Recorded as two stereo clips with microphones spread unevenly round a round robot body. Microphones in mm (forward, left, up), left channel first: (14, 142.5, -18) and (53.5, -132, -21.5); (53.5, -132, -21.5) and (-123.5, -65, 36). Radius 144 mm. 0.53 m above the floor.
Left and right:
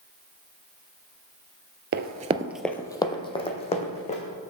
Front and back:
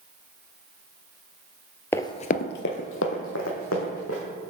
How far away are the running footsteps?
About 0.6 m.